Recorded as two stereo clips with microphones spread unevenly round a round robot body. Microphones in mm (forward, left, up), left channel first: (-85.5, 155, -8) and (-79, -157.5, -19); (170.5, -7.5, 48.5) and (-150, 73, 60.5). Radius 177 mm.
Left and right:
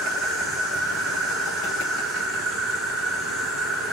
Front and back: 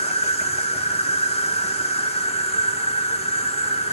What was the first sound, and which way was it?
An insect, 5° right.